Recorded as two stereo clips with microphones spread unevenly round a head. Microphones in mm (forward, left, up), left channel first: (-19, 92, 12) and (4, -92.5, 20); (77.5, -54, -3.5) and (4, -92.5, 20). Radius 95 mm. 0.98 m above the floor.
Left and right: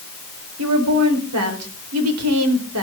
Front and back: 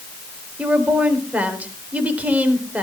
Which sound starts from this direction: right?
A woman speaking, at 0.6 s.